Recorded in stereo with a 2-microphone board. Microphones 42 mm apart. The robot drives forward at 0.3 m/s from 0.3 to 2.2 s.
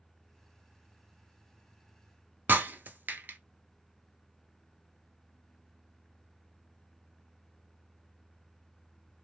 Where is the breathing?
I don't hear breathing.